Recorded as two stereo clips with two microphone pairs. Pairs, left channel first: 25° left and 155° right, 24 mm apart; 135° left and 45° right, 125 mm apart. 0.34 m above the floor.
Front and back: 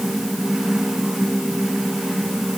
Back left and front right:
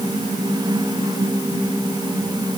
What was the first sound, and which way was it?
Only background noise.